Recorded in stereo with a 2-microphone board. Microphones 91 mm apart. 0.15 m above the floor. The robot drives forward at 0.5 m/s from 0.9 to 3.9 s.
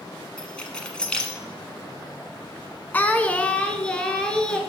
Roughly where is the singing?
Left.